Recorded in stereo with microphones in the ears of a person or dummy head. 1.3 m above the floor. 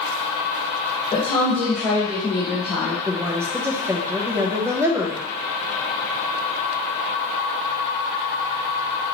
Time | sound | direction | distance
1.1 | a woman speaking | 30° left (ahead or behind) | 1.7 m
3.1 | a woman speaking | 15° right (ahead or behind) | 0.8 m